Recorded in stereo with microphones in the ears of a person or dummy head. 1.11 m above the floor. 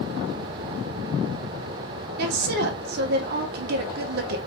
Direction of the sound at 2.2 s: 55° right (ahead or behind).